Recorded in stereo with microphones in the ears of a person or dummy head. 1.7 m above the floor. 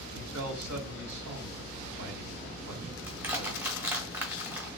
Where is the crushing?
15° right (ahead or behind), 1.1 m.